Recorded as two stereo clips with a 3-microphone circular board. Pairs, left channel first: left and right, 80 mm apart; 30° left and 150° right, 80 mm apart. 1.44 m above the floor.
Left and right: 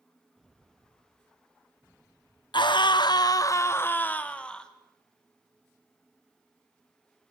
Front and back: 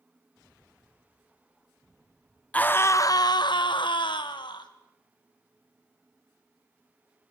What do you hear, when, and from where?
2.5 s a scream: 100° left, 1.1 m; by 4.7 s 10° left, 2 m